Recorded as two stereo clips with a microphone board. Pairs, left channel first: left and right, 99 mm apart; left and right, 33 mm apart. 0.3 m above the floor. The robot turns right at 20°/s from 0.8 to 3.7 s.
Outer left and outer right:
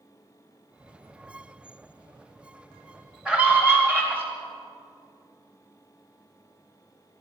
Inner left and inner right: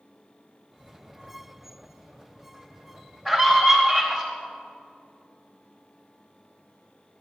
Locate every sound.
3.2 s a scream: 10° right (ahead or behind), 1.6 m; by 4.2 s 20° right (ahead or behind), 1.6 m